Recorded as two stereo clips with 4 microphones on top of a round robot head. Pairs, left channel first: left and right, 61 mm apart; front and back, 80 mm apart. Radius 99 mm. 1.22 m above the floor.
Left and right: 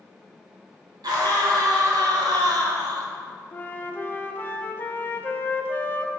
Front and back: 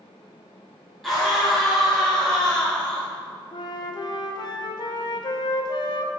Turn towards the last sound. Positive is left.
turn(degrees=30)